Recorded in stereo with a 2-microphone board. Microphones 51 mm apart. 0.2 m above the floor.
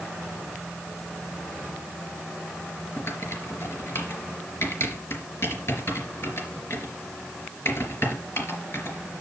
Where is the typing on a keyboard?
55° left (ahead or behind), 3.5 m.